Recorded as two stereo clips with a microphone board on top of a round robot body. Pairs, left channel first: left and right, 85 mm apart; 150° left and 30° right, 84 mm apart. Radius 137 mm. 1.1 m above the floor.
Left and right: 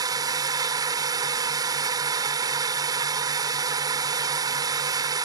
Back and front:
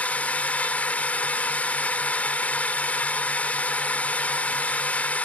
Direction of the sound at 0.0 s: 135° right.